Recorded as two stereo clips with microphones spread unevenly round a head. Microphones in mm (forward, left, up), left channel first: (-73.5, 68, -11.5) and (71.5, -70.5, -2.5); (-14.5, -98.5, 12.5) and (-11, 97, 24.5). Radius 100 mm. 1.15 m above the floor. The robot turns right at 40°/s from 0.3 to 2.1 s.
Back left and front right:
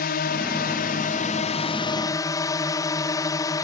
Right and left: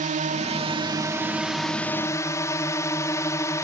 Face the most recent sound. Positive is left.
turn(degrees=-160)